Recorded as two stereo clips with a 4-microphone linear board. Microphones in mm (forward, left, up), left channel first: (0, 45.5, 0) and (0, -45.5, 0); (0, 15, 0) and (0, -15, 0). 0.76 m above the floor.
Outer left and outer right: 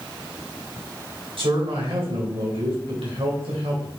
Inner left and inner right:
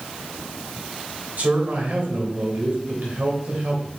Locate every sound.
1.4 s a man speaking: 80° right, 3 m